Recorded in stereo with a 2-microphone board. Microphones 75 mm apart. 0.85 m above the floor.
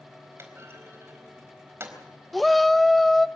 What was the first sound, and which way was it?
A clunk, 35° right (ahead or behind).